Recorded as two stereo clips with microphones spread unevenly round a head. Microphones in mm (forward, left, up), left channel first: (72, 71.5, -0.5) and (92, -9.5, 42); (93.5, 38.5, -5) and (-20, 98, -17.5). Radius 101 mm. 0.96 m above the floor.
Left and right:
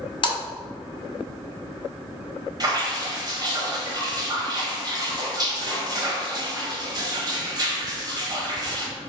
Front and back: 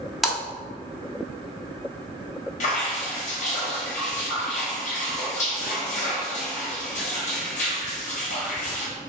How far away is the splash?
About 1.1 m.